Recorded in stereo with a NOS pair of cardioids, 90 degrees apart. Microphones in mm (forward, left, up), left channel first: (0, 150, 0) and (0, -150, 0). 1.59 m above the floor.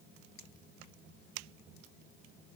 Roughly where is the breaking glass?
No breaking glass in this recording.